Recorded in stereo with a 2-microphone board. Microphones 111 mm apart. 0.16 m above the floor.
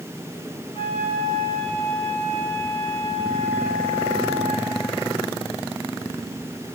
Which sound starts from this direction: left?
A flute, at 0.7 s.